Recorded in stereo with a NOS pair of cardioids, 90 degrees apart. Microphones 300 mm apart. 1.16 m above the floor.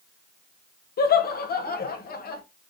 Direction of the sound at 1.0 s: 35° left.